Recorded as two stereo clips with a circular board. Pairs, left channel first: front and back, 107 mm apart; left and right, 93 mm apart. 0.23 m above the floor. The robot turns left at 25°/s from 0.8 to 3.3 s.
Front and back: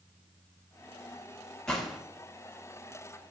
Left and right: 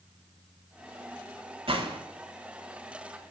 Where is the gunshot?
85° right, 0.6 m; by 2.0 s 95° right, 0.6 m.